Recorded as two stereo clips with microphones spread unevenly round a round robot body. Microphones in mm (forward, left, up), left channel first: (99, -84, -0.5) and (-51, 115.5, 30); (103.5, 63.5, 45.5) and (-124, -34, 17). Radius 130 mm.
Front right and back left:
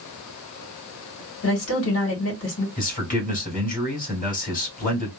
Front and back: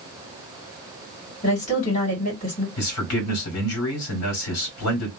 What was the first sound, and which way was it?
A woman speaking, 40° right.